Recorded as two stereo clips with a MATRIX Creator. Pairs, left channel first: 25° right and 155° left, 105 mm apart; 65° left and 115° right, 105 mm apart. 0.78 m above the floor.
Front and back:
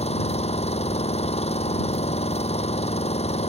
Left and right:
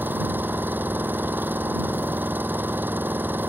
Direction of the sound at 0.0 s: 40° right.